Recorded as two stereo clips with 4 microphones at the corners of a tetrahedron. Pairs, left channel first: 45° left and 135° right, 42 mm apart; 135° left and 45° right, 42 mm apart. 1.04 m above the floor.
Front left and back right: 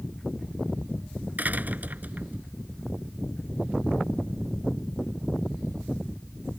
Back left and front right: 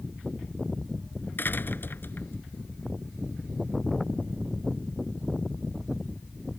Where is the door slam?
175° left.